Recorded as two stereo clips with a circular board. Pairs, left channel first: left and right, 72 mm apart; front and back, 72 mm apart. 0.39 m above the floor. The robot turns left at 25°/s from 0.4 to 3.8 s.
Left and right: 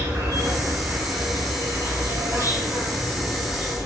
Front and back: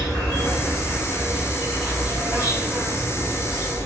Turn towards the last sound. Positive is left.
turn(degrees=-150)